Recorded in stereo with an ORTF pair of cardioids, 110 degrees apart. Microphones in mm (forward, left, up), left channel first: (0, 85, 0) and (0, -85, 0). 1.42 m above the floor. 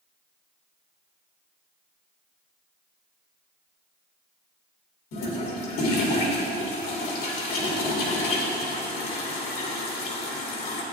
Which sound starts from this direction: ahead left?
A toilet flushing, at 5.1 s.